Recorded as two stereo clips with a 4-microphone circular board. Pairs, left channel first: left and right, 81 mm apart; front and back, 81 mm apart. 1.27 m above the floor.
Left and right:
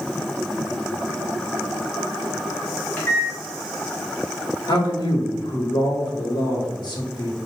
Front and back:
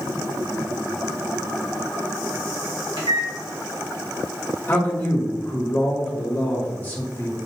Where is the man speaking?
65° left, 1.4 m.